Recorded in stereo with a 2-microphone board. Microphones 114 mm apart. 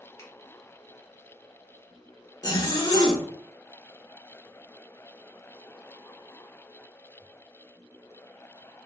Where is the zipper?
35° left (ahead or behind), 0.6 m.